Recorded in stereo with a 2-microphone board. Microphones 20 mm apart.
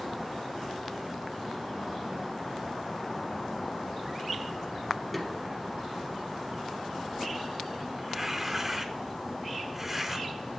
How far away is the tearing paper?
About 0.9 m.